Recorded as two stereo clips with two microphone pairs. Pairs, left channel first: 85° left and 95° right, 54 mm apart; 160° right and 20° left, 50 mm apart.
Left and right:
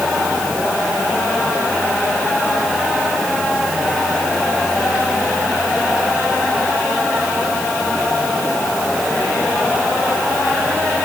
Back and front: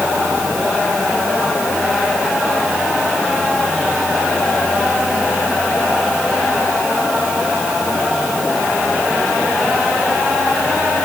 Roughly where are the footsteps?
I don't hear footsteps.